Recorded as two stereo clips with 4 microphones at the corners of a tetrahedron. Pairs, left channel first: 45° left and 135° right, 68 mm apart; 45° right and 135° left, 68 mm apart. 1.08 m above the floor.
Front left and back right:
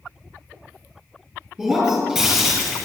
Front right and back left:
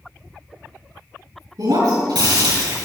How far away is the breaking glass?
About 6 m.